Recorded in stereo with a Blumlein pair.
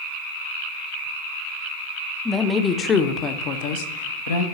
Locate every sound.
2.2 s a woman speaking: 5° left, 1.1 m; by 4.4 s 65° left, 1.2 m